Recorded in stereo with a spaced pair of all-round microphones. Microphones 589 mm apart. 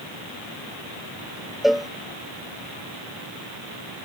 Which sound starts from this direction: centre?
A cowbell, at 1.6 s.